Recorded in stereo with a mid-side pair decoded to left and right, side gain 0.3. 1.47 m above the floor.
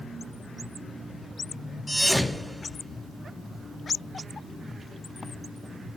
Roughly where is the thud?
Ahead.